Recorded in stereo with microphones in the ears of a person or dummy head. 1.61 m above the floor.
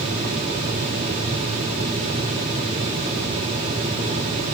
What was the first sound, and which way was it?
Only background noise.